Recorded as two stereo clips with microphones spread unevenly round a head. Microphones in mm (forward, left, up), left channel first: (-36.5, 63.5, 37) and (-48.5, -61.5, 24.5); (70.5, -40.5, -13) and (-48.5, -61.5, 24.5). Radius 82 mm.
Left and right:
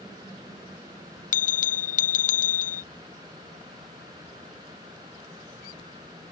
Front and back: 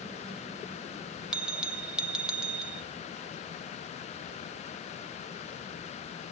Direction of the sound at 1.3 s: 100° left.